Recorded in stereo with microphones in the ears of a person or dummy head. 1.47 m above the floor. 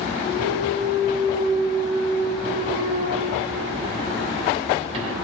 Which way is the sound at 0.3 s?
35° right (ahead or behind).